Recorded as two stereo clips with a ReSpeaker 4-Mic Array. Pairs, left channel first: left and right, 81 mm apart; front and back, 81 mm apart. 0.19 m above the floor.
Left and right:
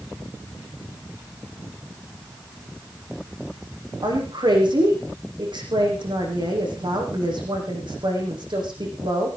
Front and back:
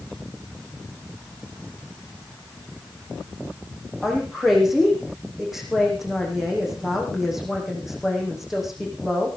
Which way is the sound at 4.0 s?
95° right.